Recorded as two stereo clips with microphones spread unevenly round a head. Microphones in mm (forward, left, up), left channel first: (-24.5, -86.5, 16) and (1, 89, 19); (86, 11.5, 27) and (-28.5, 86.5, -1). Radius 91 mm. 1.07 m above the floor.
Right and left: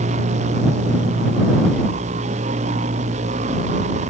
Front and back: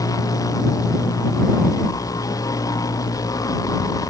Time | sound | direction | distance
0.0 | a machine running | 30° left | ?